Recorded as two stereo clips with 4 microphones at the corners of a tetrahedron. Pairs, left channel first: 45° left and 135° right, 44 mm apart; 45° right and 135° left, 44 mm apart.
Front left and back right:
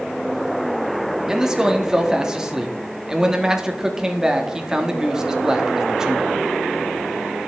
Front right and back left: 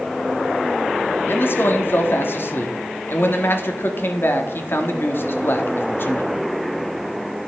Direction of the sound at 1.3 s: 60° right.